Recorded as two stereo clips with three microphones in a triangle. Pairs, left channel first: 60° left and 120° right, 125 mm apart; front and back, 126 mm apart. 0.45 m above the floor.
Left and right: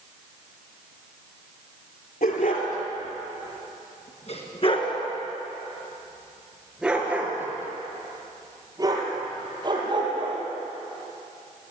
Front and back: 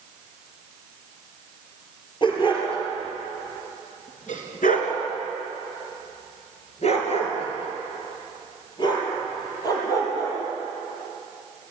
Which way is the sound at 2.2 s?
55° left.